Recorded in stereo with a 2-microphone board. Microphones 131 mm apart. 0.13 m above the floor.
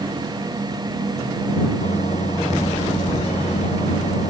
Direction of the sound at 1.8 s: 60° left (ahead or behind).